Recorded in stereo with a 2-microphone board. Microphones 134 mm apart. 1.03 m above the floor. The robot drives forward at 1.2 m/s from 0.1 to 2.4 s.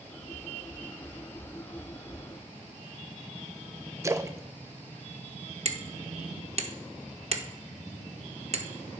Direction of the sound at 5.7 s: 50° right (ahead or behind).